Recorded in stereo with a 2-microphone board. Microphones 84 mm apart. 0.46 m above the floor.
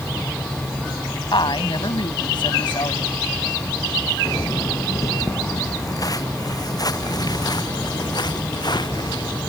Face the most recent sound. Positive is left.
turn(degrees=55)  # may be behind; listen again after turning